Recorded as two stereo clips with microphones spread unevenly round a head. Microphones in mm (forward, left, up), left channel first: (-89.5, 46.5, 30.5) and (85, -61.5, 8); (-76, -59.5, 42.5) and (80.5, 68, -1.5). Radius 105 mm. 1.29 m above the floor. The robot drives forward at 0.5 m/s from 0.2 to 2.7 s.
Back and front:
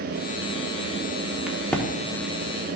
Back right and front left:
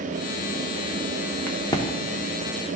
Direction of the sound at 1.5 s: 130° right.